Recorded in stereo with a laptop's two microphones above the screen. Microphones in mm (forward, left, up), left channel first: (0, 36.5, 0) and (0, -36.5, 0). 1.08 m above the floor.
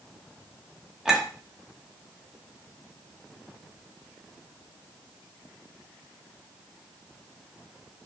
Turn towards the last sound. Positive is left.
turn(degrees=-10)  # may be behind; listen again after turning